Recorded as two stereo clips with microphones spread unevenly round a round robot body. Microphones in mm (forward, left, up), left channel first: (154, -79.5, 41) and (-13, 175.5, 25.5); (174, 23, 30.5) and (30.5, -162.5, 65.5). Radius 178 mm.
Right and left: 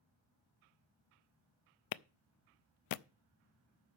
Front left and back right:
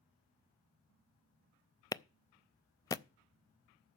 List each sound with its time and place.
1.9 s a clap: 25° right, 0.6 m